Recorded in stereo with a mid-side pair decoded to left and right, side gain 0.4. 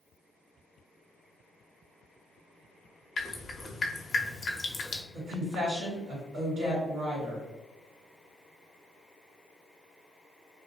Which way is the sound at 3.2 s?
40° left.